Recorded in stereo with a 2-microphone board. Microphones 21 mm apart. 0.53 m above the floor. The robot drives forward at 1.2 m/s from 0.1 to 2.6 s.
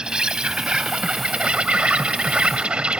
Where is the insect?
45° right (ahead or behind); by 3.0 s 65° right (ahead or behind).